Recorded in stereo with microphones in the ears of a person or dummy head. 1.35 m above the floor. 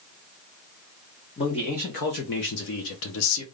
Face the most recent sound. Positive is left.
turn(degrees=80)